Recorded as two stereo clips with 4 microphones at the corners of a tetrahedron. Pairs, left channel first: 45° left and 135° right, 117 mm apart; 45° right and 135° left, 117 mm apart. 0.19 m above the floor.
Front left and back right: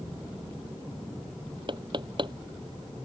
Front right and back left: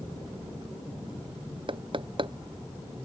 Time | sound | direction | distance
1.7 | knocking | straight behind | ?